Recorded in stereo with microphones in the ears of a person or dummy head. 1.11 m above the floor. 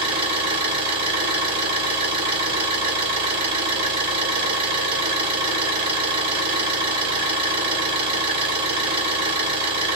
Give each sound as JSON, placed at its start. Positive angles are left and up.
{"t": 0.0, "sound": "an engine running", "side_deg": -35, "distance_m": 1.5}